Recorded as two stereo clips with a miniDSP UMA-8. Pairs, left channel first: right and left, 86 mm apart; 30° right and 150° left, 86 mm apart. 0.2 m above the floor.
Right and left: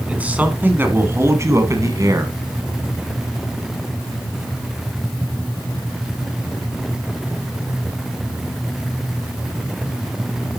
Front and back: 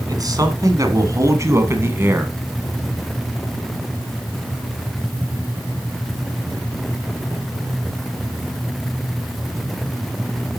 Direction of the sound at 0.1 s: 160° left.